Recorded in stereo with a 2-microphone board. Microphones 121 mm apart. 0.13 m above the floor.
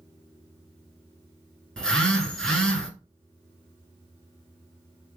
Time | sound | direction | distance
1.8 | a phone buzzing | 5° left (ahead or behind) | 1.0 m